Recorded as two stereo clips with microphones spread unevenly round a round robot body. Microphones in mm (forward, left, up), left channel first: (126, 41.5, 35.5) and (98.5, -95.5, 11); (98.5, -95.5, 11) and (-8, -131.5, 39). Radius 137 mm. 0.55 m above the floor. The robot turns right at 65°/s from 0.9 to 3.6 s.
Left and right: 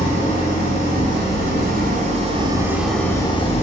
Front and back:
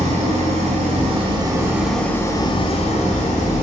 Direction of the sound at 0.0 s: 140° right.